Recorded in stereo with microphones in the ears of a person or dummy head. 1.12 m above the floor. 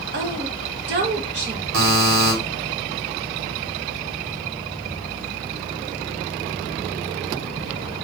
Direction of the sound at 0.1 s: 55° right (ahead or behind).